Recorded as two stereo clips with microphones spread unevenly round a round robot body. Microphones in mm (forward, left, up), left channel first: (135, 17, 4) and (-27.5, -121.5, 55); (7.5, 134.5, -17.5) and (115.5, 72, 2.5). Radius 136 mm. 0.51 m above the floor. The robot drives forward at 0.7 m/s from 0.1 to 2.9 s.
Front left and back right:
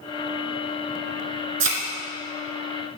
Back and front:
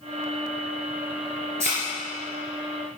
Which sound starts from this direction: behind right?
A thud, at 1.6 s.